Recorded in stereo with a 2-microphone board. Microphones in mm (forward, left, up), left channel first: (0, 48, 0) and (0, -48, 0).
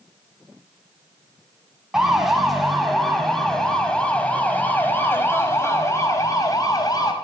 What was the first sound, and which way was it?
A siren, 5° right (ahead or behind).